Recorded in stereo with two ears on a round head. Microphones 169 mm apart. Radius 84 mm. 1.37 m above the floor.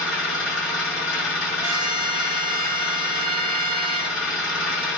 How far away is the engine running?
About 1.9 m.